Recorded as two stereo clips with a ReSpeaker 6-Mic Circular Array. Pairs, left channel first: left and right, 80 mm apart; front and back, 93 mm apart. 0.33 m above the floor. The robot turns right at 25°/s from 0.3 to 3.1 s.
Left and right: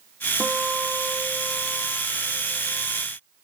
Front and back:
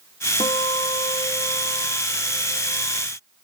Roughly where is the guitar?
Ahead.